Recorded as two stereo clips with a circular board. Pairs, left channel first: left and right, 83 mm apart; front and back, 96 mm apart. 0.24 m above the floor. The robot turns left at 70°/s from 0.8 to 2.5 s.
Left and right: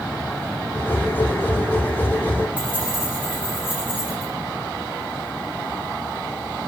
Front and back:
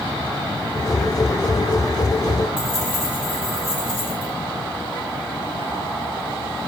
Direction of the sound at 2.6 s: 20° right.